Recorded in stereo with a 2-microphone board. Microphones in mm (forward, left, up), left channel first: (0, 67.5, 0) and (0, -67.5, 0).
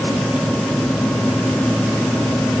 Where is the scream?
I don't hear a scream.